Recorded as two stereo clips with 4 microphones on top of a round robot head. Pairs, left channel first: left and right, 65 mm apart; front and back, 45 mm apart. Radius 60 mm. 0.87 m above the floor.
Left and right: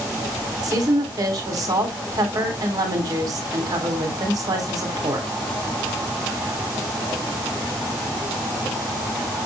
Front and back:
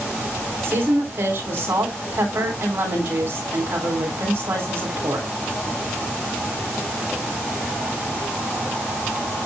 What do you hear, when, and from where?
0.6 s a woman speaking: 125° right, 3 m